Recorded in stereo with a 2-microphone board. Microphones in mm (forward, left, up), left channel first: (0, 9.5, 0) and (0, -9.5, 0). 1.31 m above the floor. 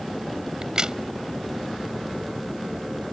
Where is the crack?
35° right (ahead or behind).